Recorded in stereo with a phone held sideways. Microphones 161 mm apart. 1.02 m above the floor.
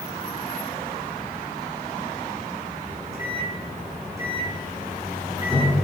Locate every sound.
2.9 s a microwave: 20° right (ahead or behind), 7 m